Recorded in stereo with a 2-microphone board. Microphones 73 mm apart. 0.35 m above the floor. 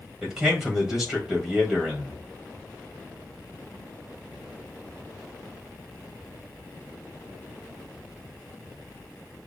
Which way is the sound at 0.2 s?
10° right (ahead or behind).